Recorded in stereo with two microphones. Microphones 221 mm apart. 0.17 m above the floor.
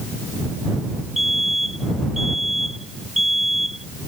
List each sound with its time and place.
1.2 s a fire alarm: centre (ahead or behind)